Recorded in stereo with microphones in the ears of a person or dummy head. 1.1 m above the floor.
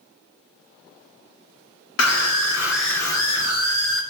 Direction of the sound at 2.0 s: 75° left (ahead or behind).